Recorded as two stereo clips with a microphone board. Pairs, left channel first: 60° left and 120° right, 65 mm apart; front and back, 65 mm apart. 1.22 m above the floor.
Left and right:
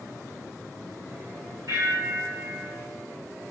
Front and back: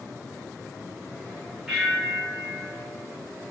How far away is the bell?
About 1.2 m.